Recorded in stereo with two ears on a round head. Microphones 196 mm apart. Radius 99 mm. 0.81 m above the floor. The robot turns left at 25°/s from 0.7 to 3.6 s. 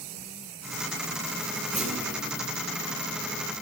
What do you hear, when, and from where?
1.7 s a clunk: 5° right (ahead or behind), 1.4 m; by 2.2 s 15° right (ahead or behind), 1.4 m